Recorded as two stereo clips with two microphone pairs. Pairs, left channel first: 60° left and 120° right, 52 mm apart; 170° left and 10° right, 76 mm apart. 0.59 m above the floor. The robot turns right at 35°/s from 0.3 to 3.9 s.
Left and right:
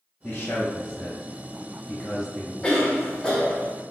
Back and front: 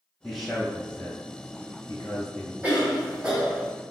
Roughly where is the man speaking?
Left.